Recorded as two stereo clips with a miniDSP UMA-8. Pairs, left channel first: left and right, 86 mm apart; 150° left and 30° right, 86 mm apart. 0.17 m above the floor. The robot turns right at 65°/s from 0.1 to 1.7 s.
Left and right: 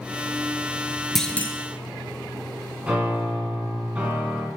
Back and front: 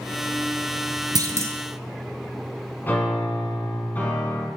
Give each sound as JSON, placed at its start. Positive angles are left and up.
{"t": 1.1, "sound": "a clunk", "azimuth_deg": 5, "distance_m": 1.0}
{"t": 2.8, "sound": "a piano", "azimuth_deg": -155, "distance_m": 1.8}